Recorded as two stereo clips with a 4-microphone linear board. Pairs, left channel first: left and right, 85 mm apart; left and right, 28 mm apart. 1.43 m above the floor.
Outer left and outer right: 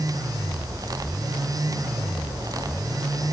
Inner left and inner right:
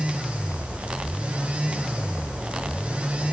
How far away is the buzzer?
No buzzer in this recording.